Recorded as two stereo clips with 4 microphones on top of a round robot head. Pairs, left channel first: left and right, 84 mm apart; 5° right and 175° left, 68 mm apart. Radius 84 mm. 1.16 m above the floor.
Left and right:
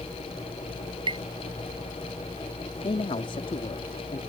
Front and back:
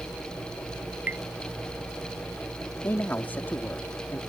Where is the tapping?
115° right.